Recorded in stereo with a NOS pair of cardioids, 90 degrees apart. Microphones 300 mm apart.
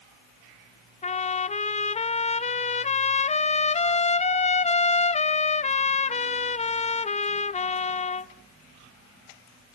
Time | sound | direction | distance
1.0 | a trumpet | 20° left | 0.7 m